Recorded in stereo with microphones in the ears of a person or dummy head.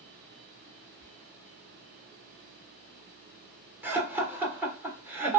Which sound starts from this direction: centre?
Laughter, at 3.8 s.